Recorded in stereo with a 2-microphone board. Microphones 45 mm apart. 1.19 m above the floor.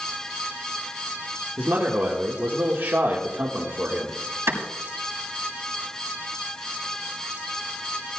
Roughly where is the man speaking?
Right.